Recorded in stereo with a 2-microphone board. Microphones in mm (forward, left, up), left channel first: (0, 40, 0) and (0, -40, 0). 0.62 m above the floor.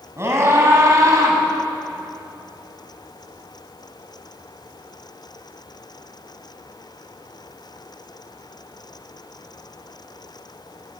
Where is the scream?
35° right (ahead or behind), 5 m; by 1.4 s 45° right (ahead or behind), 5 m.